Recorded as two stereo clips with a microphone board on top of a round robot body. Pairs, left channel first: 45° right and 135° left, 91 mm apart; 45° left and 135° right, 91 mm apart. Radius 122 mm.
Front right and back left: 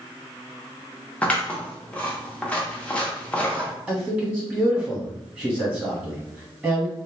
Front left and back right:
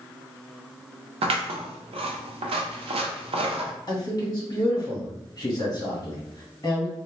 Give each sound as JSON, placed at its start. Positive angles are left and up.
{"t": 1.2, "sound": "scissors", "azimuth_deg": -120, "distance_m": 0.6}
{"t": 3.9, "sound": "a man speaking", "azimuth_deg": 70, "distance_m": 1.7}